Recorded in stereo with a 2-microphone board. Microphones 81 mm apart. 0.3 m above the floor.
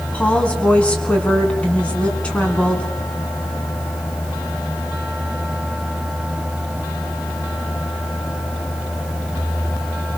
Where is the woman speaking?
15° left (ahead or behind), 3.5 m.